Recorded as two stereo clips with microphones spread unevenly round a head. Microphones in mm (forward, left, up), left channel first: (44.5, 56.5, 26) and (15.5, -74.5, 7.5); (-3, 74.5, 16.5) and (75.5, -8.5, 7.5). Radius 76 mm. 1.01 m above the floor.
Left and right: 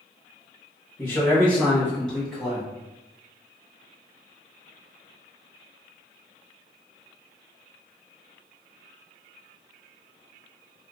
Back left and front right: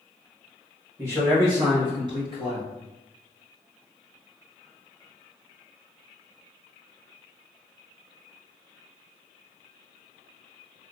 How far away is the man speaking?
About 1.0 m.